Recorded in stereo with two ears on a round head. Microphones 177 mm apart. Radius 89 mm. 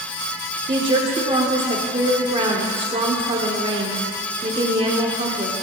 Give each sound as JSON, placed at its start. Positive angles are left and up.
{"t": 0.7, "sound": "a woman speaking", "side_deg": -25, "distance_m": 0.8}